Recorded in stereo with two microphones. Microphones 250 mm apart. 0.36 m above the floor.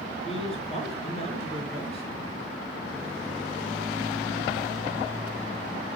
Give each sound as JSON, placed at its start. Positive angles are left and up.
{"t": 0.2, "sound": "a man speaking", "side_deg": 25, "distance_m": 6.0}